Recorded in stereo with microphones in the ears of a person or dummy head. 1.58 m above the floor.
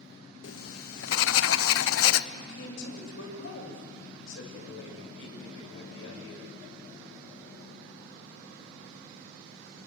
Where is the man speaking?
80° left, 7.5 m.